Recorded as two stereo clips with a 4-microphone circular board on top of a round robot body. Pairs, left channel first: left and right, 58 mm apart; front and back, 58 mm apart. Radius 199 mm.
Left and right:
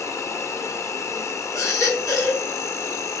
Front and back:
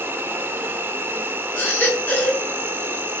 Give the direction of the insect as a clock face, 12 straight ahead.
8 o'clock.